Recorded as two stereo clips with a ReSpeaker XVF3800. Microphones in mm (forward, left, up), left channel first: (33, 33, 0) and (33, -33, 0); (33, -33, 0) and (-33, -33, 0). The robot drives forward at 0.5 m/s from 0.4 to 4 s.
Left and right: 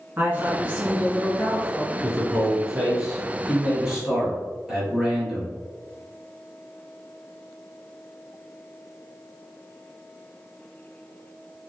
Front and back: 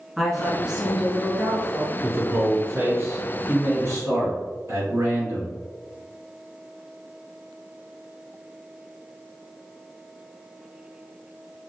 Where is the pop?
No pop in this recording.